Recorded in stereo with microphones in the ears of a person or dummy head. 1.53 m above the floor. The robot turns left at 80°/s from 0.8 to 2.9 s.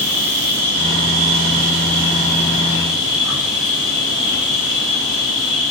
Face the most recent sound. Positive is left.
turn(degrees=180)